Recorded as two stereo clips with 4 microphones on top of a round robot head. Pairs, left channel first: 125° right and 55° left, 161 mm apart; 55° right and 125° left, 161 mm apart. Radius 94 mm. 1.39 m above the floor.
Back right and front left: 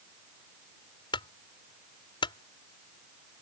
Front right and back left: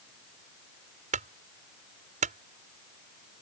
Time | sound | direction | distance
1.1 | a clunk | 170° left | ?